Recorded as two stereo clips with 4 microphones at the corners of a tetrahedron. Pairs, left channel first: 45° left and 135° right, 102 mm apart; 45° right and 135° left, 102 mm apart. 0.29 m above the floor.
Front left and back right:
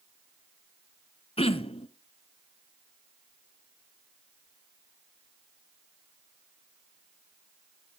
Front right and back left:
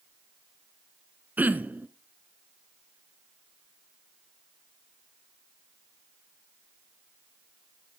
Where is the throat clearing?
60° left, 0.6 m.